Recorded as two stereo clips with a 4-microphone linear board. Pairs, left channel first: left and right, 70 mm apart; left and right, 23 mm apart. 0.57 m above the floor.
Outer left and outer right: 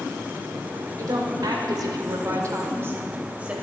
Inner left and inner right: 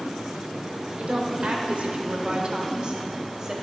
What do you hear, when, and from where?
1.0 s a woman speaking: 60° right (ahead or behind), 2 m; by 3.5 s 20° right (ahead or behind), 2 m